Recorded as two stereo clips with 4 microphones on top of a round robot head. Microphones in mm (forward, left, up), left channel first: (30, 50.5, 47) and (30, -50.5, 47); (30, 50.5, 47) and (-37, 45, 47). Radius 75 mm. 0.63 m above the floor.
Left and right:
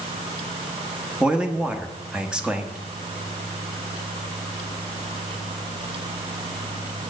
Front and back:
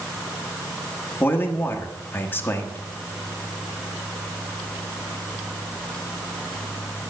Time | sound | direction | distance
1.2 | a man speaking | 15° right | 1.2 m